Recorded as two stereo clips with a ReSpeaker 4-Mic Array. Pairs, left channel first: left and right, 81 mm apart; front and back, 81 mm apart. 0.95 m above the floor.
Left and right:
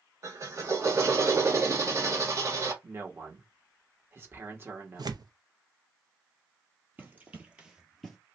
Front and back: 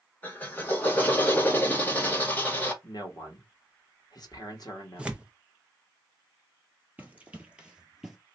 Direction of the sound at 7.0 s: 130° right.